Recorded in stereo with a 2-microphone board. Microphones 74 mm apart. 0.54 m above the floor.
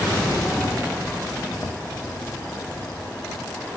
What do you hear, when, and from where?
1.5 s footsteps: 25° left (ahead or behind), 3 m